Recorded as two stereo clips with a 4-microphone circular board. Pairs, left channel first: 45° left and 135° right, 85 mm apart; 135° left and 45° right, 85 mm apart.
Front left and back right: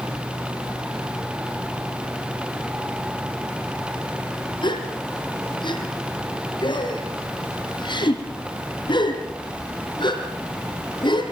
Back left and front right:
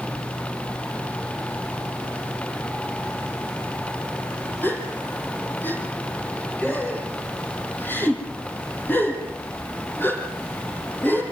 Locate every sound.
4.6 s a gasp: 70° left, 5.5 m